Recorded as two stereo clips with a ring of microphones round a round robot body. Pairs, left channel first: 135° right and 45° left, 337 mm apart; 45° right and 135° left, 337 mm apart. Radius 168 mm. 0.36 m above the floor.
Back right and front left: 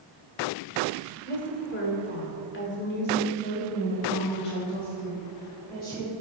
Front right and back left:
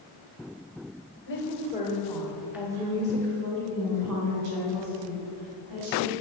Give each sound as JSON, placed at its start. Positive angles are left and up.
{"t": 1.3, "sound": "a woman speaking", "azimuth_deg": -85, "distance_m": 1.6}